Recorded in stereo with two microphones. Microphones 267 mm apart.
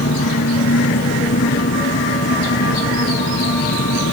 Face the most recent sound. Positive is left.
turn(degrees=60)  # may be behind; listen again after turning